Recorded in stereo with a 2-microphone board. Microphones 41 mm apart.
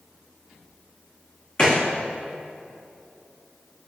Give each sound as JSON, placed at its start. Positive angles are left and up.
{"t": 1.6, "sound": "a gunshot", "side_deg": 30, "distance_m": 2.5}